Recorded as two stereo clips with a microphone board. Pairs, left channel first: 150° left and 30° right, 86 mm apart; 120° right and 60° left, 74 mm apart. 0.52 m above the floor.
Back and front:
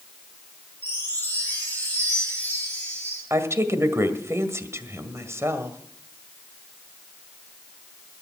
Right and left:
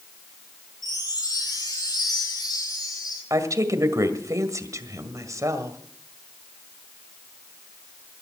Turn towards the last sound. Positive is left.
turn(degrees=25)